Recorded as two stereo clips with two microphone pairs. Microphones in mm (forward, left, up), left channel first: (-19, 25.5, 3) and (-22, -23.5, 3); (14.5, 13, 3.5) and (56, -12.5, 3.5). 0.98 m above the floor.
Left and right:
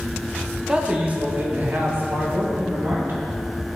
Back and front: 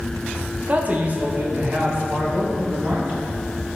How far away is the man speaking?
About 0.9 m.